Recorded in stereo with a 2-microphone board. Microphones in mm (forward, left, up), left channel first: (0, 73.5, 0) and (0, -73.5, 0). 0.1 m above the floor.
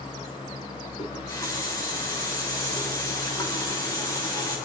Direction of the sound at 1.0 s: 25° left (ahead or behind).